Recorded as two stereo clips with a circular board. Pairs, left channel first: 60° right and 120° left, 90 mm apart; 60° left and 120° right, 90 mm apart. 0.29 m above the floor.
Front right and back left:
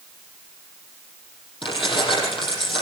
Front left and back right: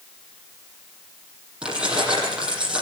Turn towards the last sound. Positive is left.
turn(degrees=-40)